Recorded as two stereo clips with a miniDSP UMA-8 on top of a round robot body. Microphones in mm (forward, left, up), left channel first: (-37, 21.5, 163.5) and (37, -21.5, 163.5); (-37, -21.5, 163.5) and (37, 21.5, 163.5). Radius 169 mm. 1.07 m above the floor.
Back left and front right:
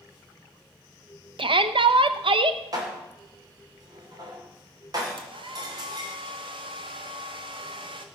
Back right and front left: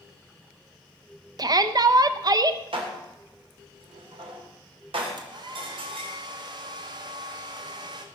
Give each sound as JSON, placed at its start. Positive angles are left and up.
{"t": 1.4, "sound": "a shout", "azimuth_deg": -10, "distance_m": 0.9}
{"t": 2.7, "sound": "dishes clattering", "azimuth_deg": 15, "distance_m": 3.0}
{"t": 5.2, "sound": "a hair dryer", "azimuth_deg": -5, "distance_m": 1.0}